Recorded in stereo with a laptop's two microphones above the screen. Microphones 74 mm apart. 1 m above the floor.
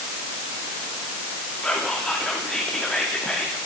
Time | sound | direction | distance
1.6 | whispering | 5° left (ahead or behind) | 2.5 m